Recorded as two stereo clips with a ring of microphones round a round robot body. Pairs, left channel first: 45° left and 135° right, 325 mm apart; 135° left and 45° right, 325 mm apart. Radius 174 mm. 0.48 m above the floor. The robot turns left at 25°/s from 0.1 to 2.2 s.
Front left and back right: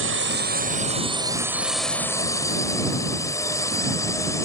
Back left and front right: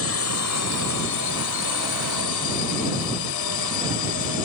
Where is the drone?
175° left; by 4.5 s 125° left.